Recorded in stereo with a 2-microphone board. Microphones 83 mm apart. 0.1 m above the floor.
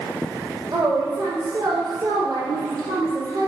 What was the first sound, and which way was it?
A woman speaking, 50° right (ahead or behind).